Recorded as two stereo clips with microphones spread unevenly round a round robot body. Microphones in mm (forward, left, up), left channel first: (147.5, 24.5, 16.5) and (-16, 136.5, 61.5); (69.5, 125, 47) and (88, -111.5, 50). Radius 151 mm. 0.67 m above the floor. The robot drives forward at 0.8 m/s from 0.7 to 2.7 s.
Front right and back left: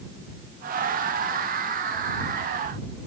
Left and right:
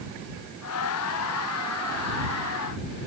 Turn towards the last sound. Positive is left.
No sound to turn to.